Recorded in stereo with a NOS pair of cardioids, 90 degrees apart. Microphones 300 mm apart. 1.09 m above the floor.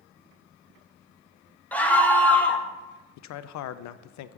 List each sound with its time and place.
1.7 s a scream: 5° left, 1.1 m
3.2 s a man speaking: 70° left, 0.5 m